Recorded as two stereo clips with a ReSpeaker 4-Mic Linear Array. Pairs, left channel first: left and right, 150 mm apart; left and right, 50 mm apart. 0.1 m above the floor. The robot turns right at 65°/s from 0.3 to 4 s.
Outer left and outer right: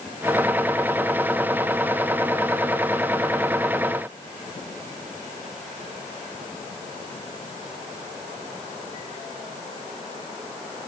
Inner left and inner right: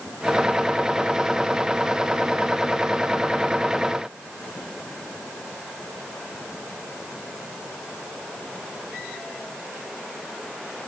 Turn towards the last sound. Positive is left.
No sound to turn to.